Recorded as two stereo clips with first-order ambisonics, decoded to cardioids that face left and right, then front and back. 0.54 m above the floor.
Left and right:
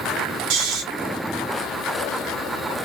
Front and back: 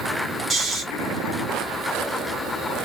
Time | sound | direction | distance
0.5 | snoring | 110° right | 1.3 m